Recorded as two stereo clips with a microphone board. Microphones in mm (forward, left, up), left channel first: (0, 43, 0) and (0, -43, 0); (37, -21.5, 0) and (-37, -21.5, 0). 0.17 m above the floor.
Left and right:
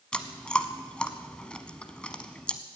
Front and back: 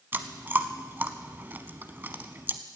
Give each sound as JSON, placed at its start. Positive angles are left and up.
{"t": 0.1, "sound": "chewing", "azimuth_deg": 155, "distance_m": 1.0}